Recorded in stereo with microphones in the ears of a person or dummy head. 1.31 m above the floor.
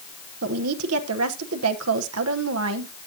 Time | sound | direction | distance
0.4 | a woman speaking | 75° right (ahead or behind) | 1.0 m